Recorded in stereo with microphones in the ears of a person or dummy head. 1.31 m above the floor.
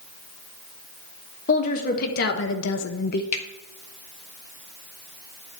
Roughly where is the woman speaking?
Left.